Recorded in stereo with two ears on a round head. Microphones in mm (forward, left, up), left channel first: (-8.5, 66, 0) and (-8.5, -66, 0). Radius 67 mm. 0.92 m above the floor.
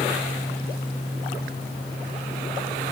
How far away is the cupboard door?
I don't hear a cupboard door.